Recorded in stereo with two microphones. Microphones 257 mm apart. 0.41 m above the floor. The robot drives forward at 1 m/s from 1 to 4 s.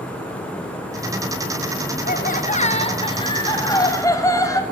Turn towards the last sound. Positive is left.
turn(degrees=15)  # may be behind; listen again after turning